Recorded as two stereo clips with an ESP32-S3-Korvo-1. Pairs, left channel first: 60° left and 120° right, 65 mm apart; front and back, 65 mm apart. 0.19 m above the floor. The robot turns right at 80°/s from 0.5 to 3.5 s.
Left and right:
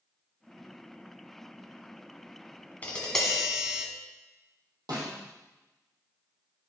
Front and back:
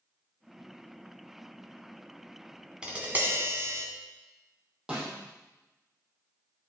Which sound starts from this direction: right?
A snare drum, at 4.9 s.